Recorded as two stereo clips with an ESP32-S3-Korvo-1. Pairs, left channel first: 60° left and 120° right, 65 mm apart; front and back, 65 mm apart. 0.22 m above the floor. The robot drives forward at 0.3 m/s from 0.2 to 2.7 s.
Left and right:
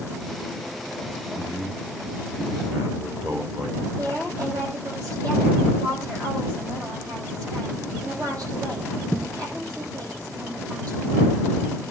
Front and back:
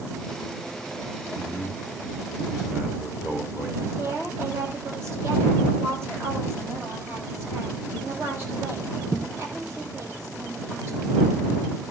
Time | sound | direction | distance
1.4 | a man speaking | 105° right | 5.5 m
4.0 | a woman speaking | 135° right | 8 m